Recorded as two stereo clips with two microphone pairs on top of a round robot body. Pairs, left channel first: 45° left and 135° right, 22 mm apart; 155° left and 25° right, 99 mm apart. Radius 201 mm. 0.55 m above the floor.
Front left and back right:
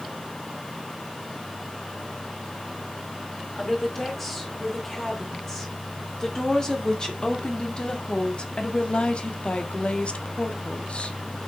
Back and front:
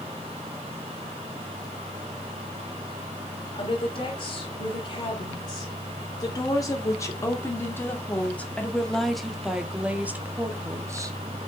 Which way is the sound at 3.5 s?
120° left.